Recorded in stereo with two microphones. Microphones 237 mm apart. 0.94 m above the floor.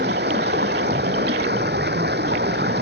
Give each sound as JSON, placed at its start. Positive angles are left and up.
{"t": 0.0, "sound": "running water", "side_deg": -45}